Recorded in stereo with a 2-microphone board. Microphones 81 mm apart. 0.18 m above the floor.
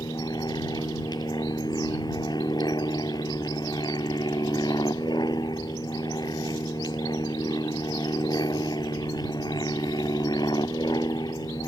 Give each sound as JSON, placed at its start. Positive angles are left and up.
{"t": 0.0, "sound": "an aircraft", "side_deg": 65}